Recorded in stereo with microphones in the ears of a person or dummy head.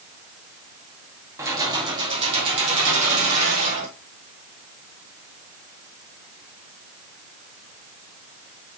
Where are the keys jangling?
15° right (ahead or behind), 1.9 m; by 3.9 s 40° right (ahead or behind), 4 m.